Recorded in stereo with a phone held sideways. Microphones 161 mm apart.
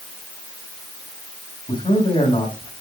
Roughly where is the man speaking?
Left.